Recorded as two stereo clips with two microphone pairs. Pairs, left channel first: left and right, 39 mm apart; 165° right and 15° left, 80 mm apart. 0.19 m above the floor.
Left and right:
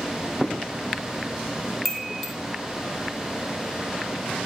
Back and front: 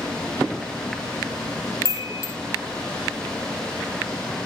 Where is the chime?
175° left, 0.6 m.